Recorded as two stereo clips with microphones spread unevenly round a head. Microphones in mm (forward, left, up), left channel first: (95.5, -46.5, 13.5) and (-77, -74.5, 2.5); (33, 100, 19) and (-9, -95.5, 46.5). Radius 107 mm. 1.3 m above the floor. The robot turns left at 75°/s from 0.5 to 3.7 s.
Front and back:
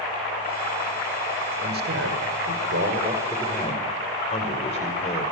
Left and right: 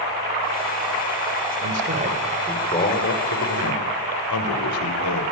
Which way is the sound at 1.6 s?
130° right.